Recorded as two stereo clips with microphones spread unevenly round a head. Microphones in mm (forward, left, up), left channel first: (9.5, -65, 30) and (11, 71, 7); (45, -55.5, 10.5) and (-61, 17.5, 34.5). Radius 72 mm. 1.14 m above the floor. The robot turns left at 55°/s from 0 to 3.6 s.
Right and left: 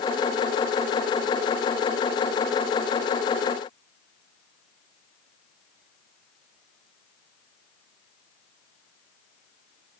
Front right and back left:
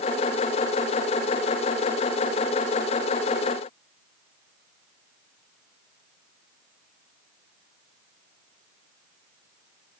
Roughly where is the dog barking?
I don't hear a dog barking.